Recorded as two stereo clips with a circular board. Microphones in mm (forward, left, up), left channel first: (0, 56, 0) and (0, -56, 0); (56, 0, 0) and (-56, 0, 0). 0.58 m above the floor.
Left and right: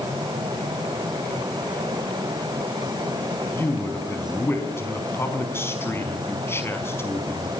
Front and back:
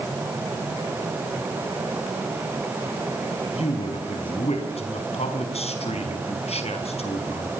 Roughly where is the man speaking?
Ahead.